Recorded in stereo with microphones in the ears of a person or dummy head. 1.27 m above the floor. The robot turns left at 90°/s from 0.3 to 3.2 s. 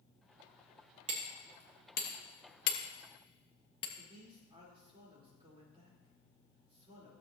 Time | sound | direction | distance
1.1 | hammering | 25° right (ahead or behind) | 1.3 m
4.0 | a man speaking | 40° right (ahead or behind) | 4 m